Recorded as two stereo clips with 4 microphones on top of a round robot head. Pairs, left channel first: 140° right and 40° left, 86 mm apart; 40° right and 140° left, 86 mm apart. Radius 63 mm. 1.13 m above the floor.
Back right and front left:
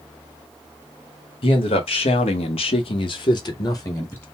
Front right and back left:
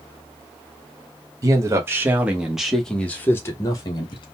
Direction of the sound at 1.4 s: 160° right.